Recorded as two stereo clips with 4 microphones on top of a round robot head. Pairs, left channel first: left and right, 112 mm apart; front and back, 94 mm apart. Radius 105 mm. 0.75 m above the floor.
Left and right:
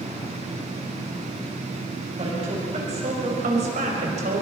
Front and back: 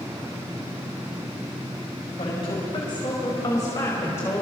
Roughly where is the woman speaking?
Ahead right.